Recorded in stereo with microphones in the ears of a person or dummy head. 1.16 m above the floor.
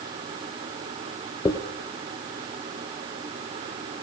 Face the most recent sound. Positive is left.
turn(degrees=20)  # may be behind; listen again after turning